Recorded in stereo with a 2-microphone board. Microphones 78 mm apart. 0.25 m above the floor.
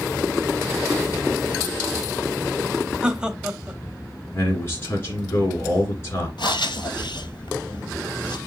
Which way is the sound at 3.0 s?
10° right (ahead or behind).